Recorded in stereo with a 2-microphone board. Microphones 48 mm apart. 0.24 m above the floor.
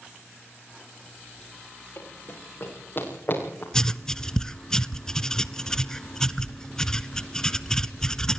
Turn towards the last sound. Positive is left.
turn(degrees=15)  # may be behind; listen again after turning